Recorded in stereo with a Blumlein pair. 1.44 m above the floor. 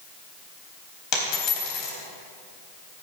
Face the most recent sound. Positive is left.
turn(degrees=35)